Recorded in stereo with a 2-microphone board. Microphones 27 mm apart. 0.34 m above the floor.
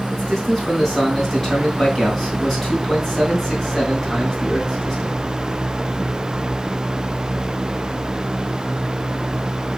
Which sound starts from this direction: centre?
A man speaking, at 0.1 s.